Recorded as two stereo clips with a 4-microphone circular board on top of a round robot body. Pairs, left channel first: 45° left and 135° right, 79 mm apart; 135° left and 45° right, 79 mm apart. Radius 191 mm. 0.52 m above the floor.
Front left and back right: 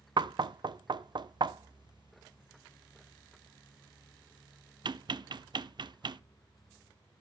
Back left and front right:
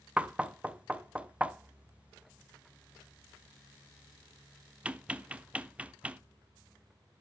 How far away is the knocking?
About 0.5 m.